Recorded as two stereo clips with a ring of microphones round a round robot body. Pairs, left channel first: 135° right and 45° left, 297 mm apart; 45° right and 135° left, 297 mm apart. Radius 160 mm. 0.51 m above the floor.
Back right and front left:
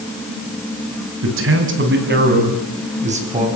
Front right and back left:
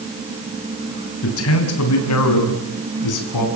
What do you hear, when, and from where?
1.2 s a man speaking: straight ahead, 5 m; by 3.5 s 25° right, 6.5 m